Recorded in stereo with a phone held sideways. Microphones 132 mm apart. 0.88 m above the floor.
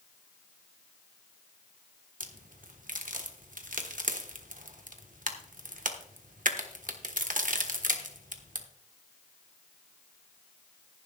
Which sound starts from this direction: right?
A crack, at 2.2 s.